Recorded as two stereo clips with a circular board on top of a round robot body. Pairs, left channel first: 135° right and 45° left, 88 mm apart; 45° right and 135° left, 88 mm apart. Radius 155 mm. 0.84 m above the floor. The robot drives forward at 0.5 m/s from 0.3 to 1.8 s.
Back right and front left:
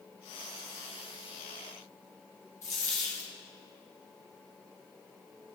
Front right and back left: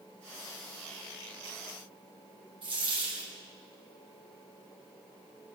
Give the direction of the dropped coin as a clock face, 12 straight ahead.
6 o'clock.